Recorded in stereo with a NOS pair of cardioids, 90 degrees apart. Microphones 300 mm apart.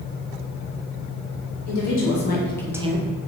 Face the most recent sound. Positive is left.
turn(degrees=-45)